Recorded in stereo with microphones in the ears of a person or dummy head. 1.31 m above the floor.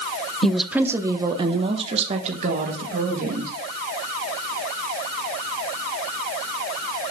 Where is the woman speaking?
5° left (ahead or behind), 0.9 m; by 3.5 s 50° right (ahead or behind), 2 m.